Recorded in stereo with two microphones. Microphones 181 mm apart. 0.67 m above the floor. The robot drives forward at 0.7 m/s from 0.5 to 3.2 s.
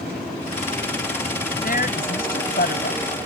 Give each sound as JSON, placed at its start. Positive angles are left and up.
{"t": 1.6, "sound": "a woman speaking", "side_deg": 55}